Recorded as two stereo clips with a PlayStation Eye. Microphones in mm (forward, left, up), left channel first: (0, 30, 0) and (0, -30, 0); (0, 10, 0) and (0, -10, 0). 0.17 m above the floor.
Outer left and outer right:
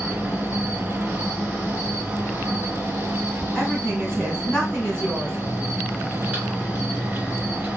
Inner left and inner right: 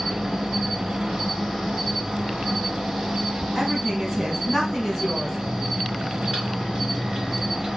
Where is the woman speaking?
15° left (ahead or behind), 1.4 m.